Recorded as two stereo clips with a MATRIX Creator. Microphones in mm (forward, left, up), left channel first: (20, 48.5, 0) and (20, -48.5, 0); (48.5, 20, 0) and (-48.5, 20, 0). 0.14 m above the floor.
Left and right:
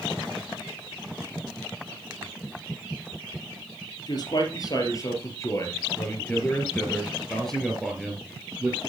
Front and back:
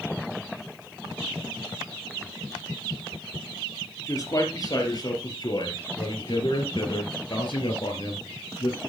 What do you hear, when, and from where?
4.1 s a man speaking: 50° left, 3.5 m; by 8.8 s 15° right, 3 m